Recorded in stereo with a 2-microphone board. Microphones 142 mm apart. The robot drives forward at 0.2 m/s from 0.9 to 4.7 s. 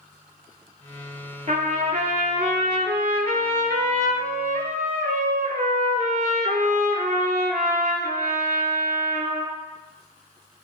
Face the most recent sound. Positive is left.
turn(degrees=-70)  # may be behind; listen again after turning